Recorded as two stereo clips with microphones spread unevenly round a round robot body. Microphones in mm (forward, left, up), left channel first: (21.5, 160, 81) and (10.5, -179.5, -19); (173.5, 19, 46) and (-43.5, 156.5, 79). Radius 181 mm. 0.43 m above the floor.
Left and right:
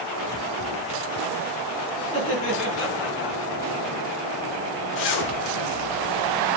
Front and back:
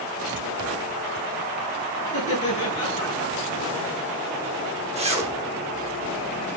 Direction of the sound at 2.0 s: 30° left.